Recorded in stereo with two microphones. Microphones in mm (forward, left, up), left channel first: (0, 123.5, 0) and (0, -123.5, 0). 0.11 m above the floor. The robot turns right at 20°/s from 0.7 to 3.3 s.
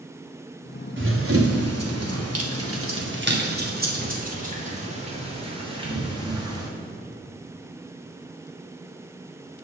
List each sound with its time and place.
1.0 s running footsteps: 50° right (ahead or behind), 2 m; by 6.7 s 15° right (ahead or behind), 4 m